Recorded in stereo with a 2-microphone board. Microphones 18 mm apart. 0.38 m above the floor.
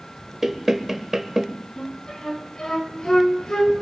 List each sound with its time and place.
0.4 s knocking: 20° right (ahead or behind), 1.4 m
1.8 s a flute: 50° left (ahead or behind), 1.8 m